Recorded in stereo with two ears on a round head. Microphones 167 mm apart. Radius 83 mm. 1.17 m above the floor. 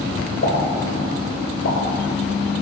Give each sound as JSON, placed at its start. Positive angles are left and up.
{"t": 0.4, "sound": "a pop", "side_deg": 65, "distance_m": 2.0}